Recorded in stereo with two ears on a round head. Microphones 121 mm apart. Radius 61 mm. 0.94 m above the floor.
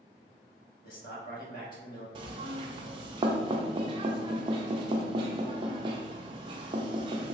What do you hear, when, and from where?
0.8 s a man speaking: 75° left (ahead or behind), 1.5 m
2.1 s knocking: 35° right (ahead or behind), 0.5 m